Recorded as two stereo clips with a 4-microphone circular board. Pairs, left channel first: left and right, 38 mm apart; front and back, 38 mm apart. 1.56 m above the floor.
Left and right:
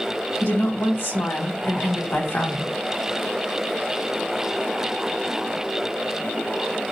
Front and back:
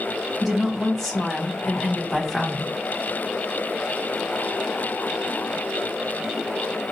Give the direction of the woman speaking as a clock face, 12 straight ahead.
9 o'clock.